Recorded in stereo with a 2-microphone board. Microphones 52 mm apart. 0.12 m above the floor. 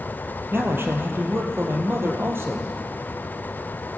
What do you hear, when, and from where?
0.5 s a man speaking: 45° right (ahead or behind), 3 m